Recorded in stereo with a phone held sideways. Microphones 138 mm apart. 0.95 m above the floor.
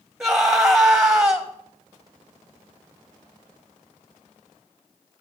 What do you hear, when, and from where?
0.2 s a scream: 5° right (ahead or behind), 1.0 m